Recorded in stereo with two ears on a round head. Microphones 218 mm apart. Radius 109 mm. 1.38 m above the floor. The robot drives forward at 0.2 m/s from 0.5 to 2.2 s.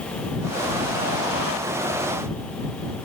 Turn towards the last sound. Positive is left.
No sound to turn to.